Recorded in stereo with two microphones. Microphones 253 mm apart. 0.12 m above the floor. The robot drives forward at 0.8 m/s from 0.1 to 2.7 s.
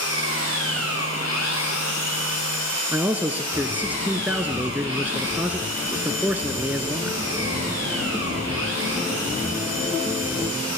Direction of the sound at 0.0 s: 80° left.